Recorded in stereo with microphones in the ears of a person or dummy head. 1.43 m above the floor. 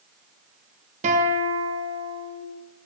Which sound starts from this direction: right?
A guitar, at 1.0 s.